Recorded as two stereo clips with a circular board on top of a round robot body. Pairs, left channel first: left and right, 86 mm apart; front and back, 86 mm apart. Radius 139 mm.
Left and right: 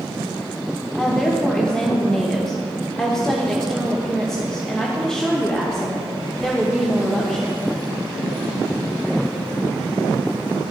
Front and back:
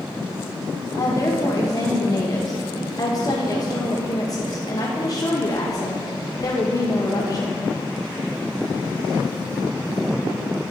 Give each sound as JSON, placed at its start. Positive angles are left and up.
{"t": 0.9, "sound": "a woman speaking", "azimuth_deg": 10, "distance_m": 1.1}